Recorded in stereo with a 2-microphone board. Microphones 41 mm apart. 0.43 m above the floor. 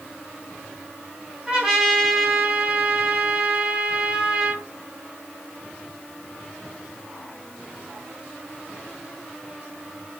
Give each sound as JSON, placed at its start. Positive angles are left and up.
{"t": 1.5, "sound": "a trumpet", "side_deg": -10, "distance_m": 3.5}